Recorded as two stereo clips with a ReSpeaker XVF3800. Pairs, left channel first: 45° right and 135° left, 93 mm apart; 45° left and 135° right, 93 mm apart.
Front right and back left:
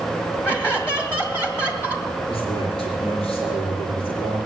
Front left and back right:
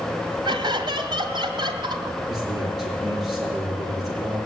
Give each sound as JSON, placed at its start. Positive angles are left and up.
{"t": 0.5, "sound": "laughter", "azimuth_deg": -110, "distance_m": 2.0}
{"t": 2.3, "sound": "a man speaking", "azimuth_deg": -50, "distance_m": 6.5}